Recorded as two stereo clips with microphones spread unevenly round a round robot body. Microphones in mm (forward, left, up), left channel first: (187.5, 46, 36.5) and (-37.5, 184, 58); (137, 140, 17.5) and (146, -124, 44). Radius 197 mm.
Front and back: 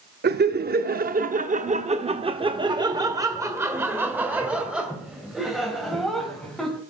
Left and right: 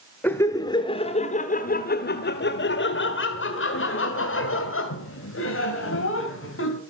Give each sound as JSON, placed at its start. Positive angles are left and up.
{"t": 0.2, "sound": "laughter", "azimuth_deg": 160, "distance_m": 1.2}